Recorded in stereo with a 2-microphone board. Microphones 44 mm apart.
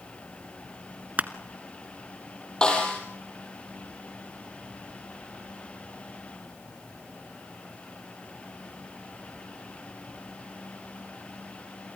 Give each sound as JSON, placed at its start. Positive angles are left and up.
{"t": 1.2, "sound": "crushing", "side_deg": -35, "distance_m": 1.0}
{"t": 2.6, "sound": "a snare drum", "side_deg": 20, "distance_m": 5.0}